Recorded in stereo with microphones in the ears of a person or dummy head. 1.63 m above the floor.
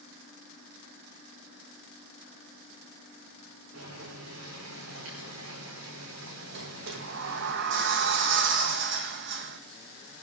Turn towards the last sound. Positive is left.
turn(degrees=-60)  # may be behind; listen again after turning